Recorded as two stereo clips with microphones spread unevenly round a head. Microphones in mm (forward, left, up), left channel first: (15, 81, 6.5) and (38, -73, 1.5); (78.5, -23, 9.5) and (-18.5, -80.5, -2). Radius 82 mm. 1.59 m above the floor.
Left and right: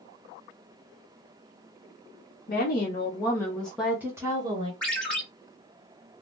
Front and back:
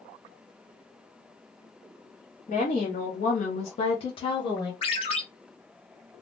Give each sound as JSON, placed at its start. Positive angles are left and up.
{"t": 2.5, "sound": "a woman speaking", "azimuth_deg": 70, "distance_m": 0.8}
{"t": 4.8, "sound": "a ringtone", "azimuth_deg": 15, "distance_m": 1.5}